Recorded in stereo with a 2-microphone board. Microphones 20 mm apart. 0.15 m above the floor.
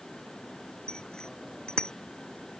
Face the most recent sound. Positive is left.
turn(degrees=50)  # may be behind; listen again after turning